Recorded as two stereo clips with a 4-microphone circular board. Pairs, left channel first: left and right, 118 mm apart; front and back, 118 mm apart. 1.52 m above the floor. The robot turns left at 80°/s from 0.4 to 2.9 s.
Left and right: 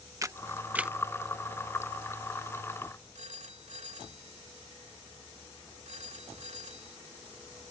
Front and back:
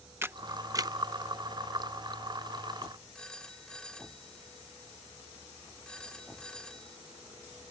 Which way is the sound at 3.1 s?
85° right.